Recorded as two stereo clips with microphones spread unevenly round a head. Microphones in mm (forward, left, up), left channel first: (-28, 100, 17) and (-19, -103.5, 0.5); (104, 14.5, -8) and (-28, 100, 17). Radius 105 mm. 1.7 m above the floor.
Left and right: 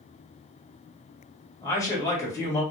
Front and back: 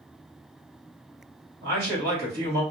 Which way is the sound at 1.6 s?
165° left.